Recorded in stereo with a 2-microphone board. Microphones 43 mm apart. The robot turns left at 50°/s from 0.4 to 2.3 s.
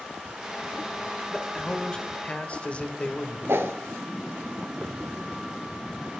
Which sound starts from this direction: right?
A whoosh, at 3.5 s.